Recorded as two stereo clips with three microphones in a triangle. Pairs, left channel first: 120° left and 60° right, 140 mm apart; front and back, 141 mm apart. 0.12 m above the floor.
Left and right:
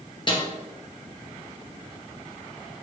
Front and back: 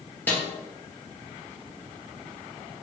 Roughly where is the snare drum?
Left.